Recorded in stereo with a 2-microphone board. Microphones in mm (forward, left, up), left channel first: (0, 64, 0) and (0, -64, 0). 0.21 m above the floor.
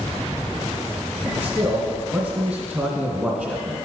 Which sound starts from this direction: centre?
A man speaking, at 1.3 s.